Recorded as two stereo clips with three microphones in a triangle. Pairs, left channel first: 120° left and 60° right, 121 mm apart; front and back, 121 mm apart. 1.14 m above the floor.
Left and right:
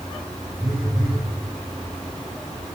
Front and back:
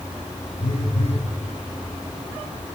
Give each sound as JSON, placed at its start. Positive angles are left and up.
{"t": 0.6, "sound": "a phone buzzing", "azimuth_deg": 20, "distance_m": 1.1}